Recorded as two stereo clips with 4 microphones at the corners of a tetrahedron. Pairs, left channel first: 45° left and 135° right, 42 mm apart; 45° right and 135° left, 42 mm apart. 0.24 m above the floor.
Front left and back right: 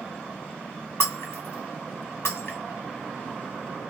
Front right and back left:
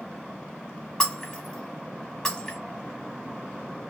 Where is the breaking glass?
35° left, 1.3 m.